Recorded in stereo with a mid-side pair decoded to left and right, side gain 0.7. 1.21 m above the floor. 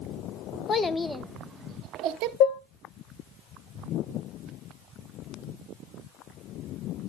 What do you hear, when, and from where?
0.7 s a child speaking: 25° left, 0.9 m; by 2.3 s 65° right, 1.0 m
2.4 s dishes clattering: 60° left, 1.3 m